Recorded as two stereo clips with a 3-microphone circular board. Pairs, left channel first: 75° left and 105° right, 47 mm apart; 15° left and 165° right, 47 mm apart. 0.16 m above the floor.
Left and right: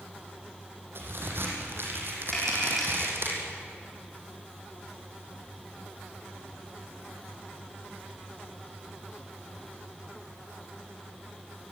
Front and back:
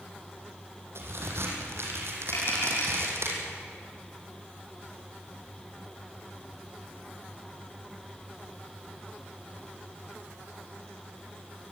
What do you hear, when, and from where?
0.9 s a crack: 140° right, 5.5 m
2.3 s tapping: 10° right, 8 m